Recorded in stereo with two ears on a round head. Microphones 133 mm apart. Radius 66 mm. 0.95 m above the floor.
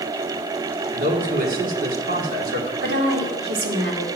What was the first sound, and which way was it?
A man speaking, 65° right (ahead or behind).